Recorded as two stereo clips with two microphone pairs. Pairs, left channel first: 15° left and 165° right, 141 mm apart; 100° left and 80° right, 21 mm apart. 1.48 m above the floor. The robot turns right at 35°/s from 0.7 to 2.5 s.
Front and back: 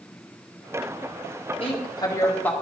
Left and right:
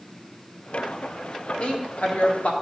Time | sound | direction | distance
1.6 | a woman speaking | 65° left | 1.7 m